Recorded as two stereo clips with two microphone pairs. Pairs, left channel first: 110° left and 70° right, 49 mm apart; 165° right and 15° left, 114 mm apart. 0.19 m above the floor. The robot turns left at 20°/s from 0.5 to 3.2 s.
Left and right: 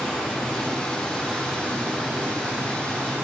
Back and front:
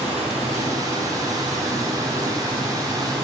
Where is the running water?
30° left, 2.5 m; by 3.2 s 25° right, 2.5 m.